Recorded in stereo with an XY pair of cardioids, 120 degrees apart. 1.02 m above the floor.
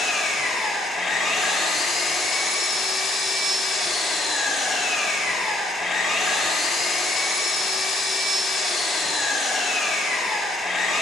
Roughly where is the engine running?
Ahead left.